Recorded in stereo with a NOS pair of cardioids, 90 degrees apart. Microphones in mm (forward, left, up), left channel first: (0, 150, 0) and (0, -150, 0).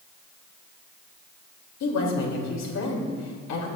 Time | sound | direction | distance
1.8 | a woman speaking | 60° left | 3 m